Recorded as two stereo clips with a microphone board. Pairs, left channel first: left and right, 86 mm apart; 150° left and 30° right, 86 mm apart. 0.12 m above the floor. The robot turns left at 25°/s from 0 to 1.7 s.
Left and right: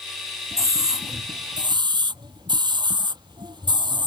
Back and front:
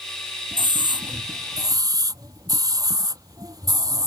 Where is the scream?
40° right; by 4.1 s 70° right.